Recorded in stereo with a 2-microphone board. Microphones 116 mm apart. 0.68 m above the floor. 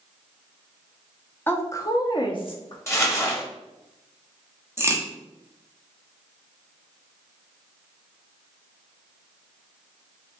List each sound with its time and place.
1.5 s a woman speaking: 15° left (ahead or behind), 0.8 m; by 2.8 s 50° left (ahead or behind), 0.9 m
2.9 s crumpling: 25° left (ahead or behind), 1.1 m
4.8 s a crack: 20° right (ahead or behind), 0.9 m